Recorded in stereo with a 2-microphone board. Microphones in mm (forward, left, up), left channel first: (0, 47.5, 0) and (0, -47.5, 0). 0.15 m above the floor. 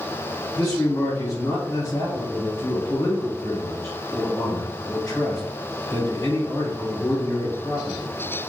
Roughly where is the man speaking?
Left.